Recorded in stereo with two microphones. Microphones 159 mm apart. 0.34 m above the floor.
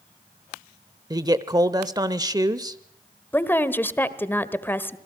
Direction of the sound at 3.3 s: 15° left (ahead or behind).